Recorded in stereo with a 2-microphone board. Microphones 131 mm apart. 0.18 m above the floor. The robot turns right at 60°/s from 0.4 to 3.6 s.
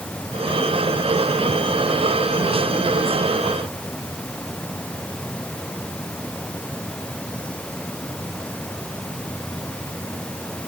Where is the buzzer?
I don't hear a buzzer.